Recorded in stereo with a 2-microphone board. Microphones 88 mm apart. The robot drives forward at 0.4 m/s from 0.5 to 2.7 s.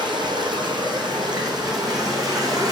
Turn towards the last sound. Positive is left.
turn(degrees=-45)  # may be behind; listen again after turning